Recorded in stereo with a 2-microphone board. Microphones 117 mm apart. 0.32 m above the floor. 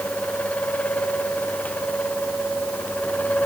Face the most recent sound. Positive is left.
No sound to turn to.